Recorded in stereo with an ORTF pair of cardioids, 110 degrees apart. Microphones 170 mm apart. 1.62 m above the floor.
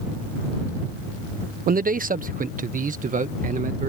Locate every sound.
1.7 s a man speaking: 55° right; by 3.9 s 50° right